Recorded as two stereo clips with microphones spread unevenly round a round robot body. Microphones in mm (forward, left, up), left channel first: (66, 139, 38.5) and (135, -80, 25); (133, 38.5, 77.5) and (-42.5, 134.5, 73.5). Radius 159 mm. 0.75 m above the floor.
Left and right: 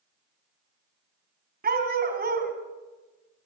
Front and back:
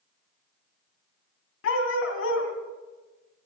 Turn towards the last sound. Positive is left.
turn(degrees=-25)